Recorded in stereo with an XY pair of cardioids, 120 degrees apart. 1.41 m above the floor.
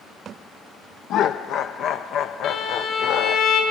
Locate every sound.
1.1 s laughter: 65° left, 0.5 m
2.4 s a violin: 60° left, 4 m